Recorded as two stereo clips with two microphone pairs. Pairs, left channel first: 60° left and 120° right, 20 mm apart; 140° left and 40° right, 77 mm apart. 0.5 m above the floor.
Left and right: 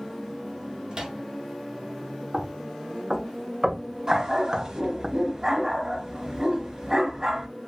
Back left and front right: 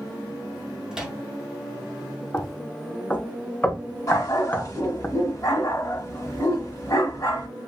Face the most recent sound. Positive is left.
turn(degrees=180)